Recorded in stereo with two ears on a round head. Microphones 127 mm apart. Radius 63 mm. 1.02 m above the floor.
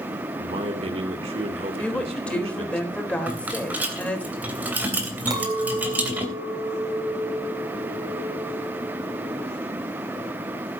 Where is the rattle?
15° right (ahead or behind), 3 m.